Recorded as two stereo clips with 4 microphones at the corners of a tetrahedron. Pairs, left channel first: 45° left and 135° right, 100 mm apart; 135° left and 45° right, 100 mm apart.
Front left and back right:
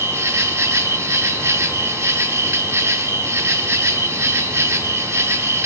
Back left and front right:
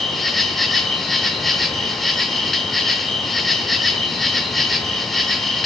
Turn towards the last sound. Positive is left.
turn(degrees=-140)